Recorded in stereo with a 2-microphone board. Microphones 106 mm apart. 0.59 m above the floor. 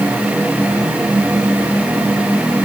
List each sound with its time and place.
Only background noise.